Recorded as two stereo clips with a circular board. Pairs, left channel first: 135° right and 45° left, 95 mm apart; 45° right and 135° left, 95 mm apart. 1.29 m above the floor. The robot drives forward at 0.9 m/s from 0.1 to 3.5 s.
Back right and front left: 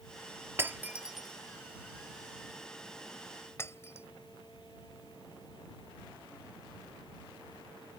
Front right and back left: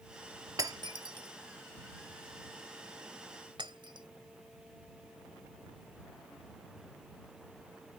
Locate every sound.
0.6 s breaking glass: 100° left; by 4.1 s 165° left